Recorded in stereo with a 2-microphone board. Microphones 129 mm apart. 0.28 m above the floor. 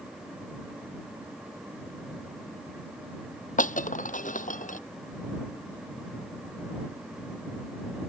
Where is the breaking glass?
80° left.